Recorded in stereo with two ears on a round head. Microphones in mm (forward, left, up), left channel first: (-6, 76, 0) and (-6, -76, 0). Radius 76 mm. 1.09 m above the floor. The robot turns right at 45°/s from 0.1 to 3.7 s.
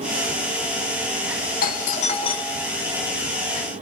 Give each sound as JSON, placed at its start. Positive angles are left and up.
{"t": 1.6, "sound": "a doorbell", "azimuth_deg": 110, "distance_m": 1.3}